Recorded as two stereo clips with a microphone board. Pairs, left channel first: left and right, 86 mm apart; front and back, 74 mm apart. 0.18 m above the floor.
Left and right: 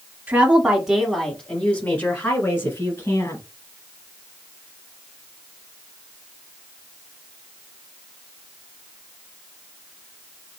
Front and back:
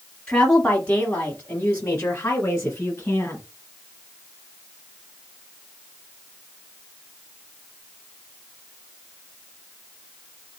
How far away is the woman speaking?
About 1.1 m.